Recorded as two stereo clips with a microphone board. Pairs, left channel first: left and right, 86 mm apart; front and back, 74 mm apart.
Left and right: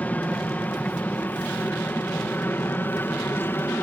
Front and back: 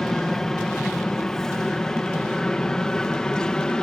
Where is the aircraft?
70° left; by 3.8 s 65° left.